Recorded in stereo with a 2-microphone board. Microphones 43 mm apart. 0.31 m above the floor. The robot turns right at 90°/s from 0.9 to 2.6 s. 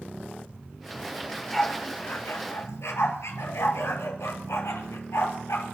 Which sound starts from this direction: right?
A dog barking, at 1.2 s.